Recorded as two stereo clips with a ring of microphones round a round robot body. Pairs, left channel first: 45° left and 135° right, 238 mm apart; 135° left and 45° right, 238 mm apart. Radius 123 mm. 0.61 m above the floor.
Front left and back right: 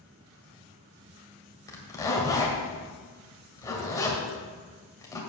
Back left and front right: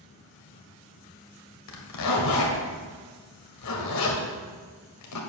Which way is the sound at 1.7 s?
120° left.